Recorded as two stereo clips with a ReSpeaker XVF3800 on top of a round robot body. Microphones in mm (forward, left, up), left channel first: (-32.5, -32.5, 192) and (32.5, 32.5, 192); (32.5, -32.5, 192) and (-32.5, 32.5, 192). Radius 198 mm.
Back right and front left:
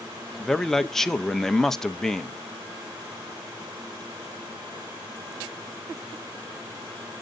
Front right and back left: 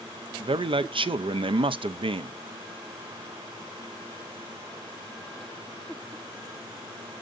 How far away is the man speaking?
About 0.7 m.